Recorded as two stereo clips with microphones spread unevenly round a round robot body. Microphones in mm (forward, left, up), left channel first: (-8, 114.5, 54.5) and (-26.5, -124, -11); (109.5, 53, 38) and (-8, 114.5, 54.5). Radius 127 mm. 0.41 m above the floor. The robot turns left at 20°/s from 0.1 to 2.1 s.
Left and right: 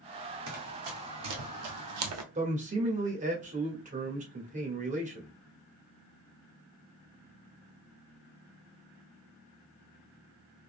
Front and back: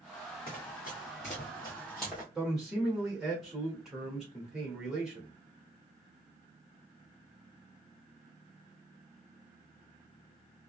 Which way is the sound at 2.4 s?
115° right.